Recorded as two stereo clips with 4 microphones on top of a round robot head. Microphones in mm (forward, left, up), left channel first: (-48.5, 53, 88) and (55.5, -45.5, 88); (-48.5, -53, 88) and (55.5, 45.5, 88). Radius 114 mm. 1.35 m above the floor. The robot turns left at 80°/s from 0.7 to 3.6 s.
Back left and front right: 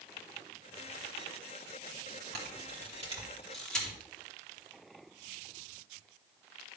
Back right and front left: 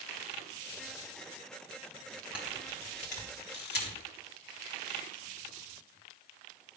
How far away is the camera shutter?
About 3.5 m.